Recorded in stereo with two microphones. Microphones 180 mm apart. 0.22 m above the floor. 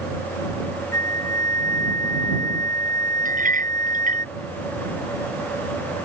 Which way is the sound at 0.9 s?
15° left (ahead or behind).